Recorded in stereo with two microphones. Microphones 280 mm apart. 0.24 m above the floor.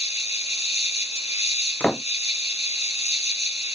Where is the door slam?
5° left (ahead or behind).